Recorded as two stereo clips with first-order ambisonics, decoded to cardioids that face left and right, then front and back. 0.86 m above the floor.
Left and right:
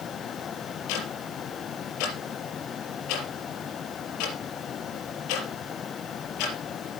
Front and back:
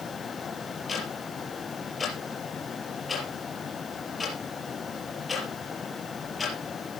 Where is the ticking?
80° left, 4.5 m.